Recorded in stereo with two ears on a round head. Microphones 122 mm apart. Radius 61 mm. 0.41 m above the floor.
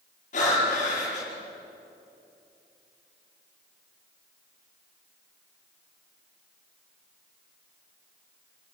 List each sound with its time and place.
0.3 s breathing: 55° left (ahead or behind), 9.5 m